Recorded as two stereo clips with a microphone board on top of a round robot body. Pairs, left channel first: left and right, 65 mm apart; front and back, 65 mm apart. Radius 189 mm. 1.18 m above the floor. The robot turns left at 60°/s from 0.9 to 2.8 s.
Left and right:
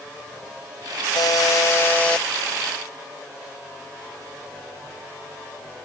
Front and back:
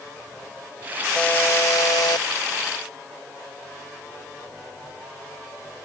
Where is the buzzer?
75° left; by 2.3 s 5° left.